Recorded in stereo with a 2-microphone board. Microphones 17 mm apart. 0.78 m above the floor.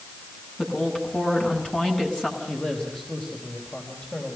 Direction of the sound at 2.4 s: 80° left.